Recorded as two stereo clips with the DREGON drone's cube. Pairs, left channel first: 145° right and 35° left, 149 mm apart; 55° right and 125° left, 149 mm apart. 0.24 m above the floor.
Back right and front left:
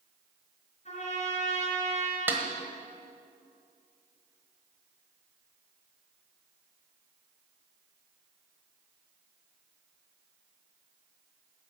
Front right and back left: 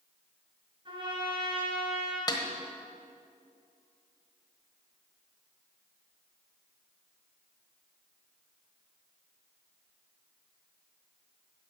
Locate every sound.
0.8 s a trumpet: straight behind, 4 m
2.3 s a snare drum: 30° right, 1.3 m